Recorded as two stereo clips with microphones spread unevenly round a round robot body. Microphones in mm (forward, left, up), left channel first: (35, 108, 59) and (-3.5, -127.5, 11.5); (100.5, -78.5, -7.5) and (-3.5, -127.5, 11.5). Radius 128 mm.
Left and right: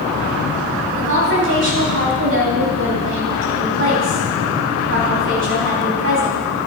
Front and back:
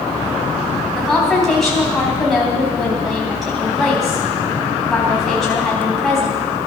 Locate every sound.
0.9 s a woman speaking: 65° right, 3.5 m